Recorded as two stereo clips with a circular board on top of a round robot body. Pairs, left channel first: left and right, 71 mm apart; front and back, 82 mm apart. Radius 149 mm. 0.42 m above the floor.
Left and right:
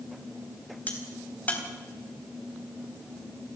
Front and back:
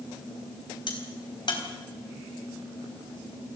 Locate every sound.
0.9 s a crack: 20° left, 4 m